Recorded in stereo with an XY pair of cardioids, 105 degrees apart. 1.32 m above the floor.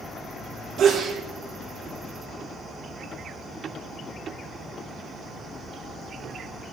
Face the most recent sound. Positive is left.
turn(degrees=-55)